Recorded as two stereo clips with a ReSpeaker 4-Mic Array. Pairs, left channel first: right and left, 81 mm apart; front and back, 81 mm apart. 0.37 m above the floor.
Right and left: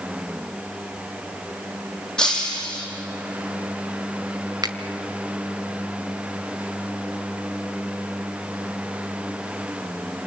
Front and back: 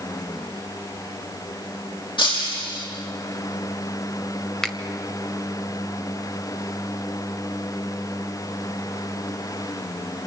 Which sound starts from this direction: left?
A finger snap, at 4.6 s.